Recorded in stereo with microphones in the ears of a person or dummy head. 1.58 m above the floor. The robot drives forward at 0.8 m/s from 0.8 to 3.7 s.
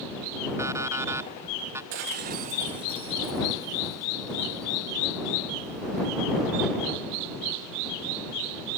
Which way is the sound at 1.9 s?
45° right (ahead or behind).